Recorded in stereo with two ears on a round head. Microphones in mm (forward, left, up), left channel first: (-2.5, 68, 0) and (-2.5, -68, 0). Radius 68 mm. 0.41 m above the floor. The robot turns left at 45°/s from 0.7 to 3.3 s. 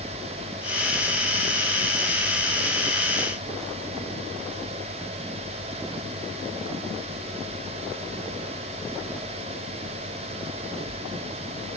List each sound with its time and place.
Only background noise.